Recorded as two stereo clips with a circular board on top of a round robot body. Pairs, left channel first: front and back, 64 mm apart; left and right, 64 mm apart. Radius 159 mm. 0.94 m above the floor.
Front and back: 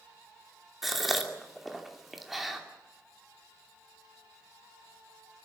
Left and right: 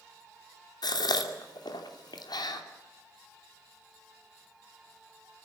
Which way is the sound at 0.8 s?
90° left.